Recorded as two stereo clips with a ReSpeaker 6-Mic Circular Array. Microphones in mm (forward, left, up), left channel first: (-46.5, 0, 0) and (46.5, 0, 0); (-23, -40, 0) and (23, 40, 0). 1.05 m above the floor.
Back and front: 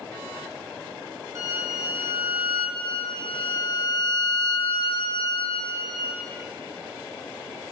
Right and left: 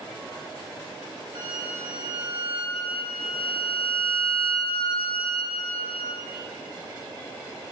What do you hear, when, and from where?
1.4 s a violin: 50° left, 1.8 m
2.8 s a violin: 140° right, 0.8 m